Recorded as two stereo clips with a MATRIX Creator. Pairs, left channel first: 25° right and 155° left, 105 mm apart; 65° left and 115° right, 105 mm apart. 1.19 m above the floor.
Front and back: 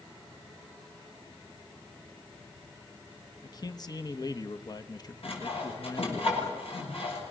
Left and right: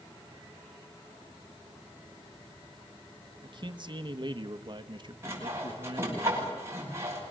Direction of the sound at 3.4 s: 75° right.